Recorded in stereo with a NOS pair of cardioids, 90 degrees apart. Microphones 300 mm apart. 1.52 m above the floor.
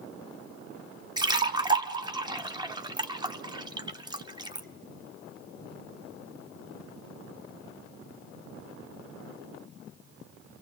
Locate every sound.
1.2 s a splash: 15° right, 0.9 m